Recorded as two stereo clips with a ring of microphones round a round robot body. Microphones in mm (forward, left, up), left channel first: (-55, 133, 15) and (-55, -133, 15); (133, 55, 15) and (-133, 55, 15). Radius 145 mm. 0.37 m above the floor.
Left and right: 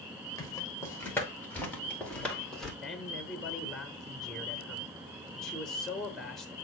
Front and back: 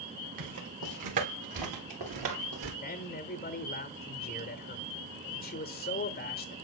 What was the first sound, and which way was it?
Footsteps, 170° left.